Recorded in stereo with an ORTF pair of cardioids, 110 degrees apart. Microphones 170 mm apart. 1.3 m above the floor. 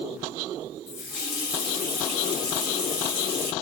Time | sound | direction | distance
0.9 | a running tap | 65° left | 1.7 m